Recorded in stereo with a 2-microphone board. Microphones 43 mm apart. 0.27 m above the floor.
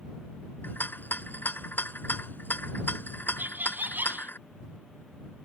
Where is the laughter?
55° right (ahead or behind).